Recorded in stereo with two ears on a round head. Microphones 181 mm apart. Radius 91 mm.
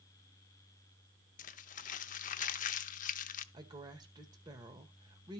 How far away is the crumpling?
About 0.6 m.